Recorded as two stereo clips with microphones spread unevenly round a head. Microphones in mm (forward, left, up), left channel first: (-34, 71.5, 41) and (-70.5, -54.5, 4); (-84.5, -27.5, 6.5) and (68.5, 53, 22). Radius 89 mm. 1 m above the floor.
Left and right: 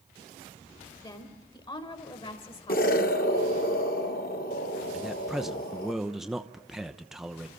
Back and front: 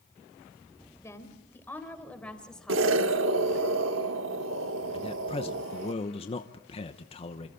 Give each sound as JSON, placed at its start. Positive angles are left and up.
{"t": 1.0, "sound": "a woman speaking", "azimuth_deg": 135, "distance_m": 4.0}
{"t": 2.7, "sound": "an explosion", "azimuth_deg": 35, "distance_m": 1.4}
{"t": 4.9, "sound": "a man speaking", "azimuth_deg": -170, "distance_m": 0.9}